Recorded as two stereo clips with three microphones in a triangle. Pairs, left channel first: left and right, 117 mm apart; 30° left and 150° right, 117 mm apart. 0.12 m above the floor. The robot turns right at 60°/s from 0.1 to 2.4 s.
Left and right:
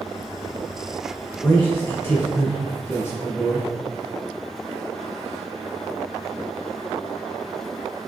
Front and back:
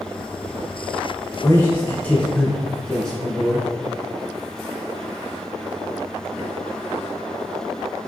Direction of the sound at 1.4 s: 45° left.